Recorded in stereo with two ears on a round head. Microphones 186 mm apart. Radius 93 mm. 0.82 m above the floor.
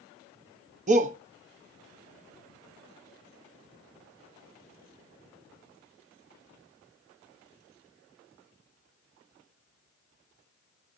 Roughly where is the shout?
Right.